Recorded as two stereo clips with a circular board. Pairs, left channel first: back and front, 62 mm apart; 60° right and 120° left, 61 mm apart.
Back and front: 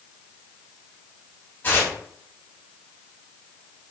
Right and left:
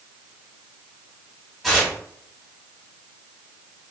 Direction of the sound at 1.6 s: 150° right.